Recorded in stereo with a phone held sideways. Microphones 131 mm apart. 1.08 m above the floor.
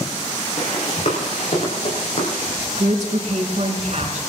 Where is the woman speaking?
60° right (ahead or behind), 4.5 m.